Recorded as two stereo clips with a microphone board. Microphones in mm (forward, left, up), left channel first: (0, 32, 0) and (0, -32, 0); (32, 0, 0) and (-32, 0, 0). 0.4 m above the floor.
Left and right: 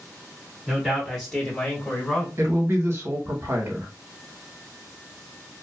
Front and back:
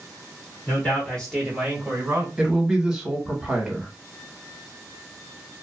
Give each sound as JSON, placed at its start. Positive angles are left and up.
{"t": 0.7, "sound": "a man speaking", "azimuth_deg": -5, "distance_m": 1.4}
{"t": 2.4, "sound": "a man speaking", "azimuth_deg": -105, "distance_m": 1.1}